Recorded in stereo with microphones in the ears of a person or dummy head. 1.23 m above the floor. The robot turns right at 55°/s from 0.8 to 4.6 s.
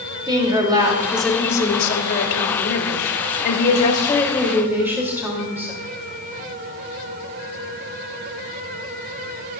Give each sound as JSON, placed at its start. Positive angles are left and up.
{"t": 0.3, "sound": "a woman speaking", "azimuth_deg": -20, "distance_m": 3.0}